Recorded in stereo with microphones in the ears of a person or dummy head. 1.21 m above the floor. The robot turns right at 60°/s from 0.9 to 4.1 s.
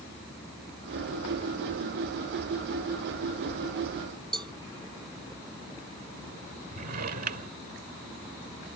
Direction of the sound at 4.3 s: 15° right (ahead or behind).